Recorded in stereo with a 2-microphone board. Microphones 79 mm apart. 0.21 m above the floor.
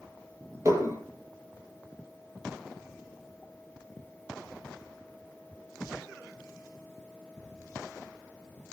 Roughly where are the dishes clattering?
Right.